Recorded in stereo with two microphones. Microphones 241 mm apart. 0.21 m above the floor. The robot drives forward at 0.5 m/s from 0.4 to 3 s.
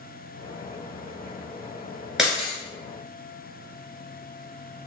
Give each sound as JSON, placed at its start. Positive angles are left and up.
{"t": 2.2, "sound": "breaking glass", "side_deg": 0, "distance_m": 1.4}